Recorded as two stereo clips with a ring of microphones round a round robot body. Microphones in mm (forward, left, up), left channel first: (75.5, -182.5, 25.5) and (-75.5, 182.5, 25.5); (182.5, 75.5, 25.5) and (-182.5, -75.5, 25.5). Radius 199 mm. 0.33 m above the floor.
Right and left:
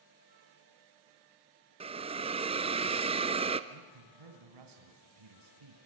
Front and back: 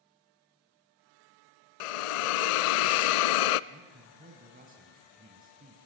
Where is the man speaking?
135° left, 3 m.